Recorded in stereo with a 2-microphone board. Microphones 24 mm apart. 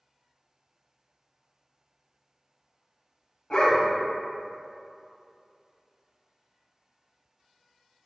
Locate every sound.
3.5 s a dog barking: 40° left (ahead or behind), 0.6 m